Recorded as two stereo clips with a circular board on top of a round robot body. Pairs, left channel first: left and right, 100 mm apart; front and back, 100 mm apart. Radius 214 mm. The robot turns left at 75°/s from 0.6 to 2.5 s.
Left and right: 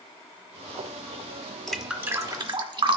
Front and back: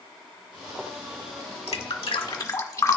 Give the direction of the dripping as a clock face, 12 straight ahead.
12 o'clock.